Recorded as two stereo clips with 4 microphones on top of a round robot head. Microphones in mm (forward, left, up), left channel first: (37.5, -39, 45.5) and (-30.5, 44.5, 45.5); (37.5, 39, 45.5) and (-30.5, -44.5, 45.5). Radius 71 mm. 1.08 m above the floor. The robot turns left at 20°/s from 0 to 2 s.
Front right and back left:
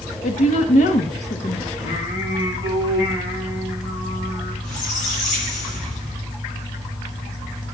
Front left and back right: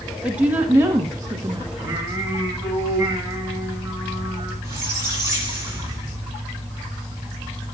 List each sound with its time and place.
0.2 s a woman speaking: 50° right, 1.5 m; by 1.7 s 80° right, 1.5 m
1.8 s singing: 60° right, 8.5 m
4.6 s a squeak: 65° right, 9 m